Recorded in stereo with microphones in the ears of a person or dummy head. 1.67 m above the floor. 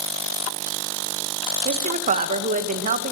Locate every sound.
1.6 s a woman speaking: 45° right (ahead or behind), 1.7 m